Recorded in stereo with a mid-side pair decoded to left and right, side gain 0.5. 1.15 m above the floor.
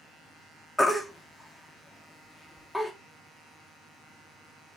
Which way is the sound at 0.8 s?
5° left.